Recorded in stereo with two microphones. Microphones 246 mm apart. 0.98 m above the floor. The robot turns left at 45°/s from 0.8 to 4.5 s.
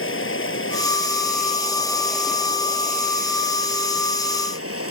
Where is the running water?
65° left; by 4.9 s 105° right.